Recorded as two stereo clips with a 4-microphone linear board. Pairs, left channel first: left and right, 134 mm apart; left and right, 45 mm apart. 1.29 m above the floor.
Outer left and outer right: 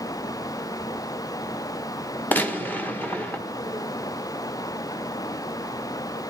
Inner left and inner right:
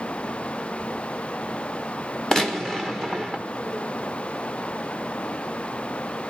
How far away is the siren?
I don't hear a siren.